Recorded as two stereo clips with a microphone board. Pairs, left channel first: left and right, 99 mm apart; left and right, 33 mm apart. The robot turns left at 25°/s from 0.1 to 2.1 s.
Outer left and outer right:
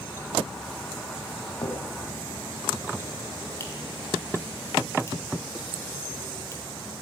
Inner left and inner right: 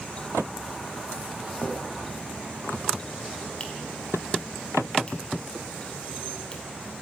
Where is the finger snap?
40° left (ahead or behind), 4.5 m; by 6.6 s 25° left (ahead or behind), 4.5 m.